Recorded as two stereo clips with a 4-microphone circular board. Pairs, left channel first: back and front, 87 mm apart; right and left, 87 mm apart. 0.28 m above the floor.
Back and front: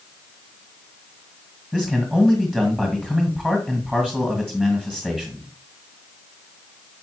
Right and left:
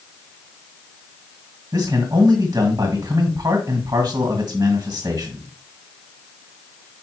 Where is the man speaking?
70° left, 1.9 m.